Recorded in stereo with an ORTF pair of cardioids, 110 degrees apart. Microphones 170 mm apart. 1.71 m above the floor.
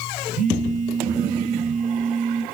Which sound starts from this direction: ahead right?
A phone buzzing, at 0.3 s.